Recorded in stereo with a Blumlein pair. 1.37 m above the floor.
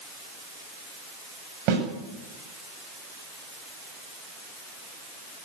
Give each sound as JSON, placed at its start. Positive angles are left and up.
{"t": 1.7, "sound": "a snare drum", "azimuth_deg": -40, "distance_m": 9.0}